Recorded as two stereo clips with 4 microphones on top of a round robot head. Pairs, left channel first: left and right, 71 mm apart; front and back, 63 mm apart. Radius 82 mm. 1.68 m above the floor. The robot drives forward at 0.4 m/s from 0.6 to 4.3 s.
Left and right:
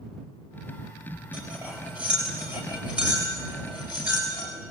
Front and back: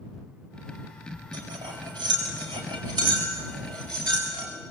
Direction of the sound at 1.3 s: 165° right.